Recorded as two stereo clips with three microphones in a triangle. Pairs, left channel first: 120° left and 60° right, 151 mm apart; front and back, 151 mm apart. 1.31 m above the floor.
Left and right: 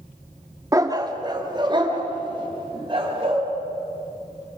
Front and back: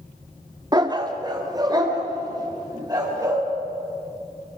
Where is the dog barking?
125° right, 1.2 m; by 3.4 s 115° right, 5 m.